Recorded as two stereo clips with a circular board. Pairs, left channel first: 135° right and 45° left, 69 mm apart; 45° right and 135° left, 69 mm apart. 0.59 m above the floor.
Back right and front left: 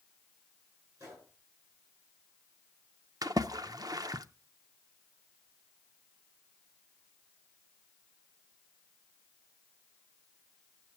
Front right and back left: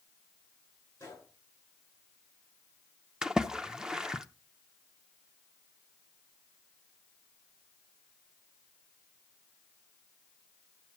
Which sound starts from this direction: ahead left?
A splash, at 3.2 s.